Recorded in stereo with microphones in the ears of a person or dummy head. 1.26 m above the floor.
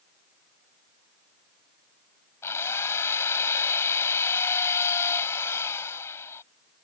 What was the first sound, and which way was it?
A drill, 15° left (ahead or behind).